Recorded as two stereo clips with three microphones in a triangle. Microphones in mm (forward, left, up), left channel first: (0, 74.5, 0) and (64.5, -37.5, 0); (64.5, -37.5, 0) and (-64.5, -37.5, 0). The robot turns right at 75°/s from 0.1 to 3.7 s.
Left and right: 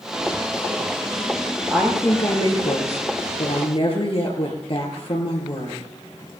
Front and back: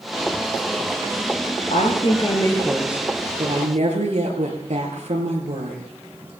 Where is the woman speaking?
10° left, 5 m; by 5.8 s 160° left, 5 m.